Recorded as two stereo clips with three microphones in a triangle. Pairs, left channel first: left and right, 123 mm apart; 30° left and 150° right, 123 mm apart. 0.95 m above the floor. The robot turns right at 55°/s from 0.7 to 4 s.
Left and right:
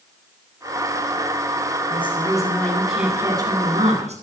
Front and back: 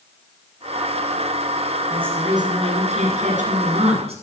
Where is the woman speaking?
130° left, 8 m; by 4.2 s 115° right, 8 m.